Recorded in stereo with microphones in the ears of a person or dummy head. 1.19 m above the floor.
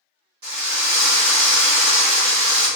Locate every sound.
0.4 s a drill: 40° right (ahead or behind), 1.4 m